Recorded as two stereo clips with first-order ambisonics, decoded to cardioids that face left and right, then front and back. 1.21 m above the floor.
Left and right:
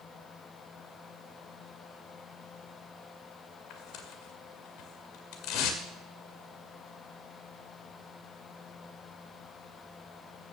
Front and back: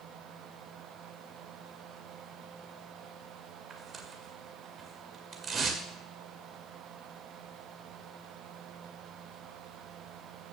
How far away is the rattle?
No rattle in this recording.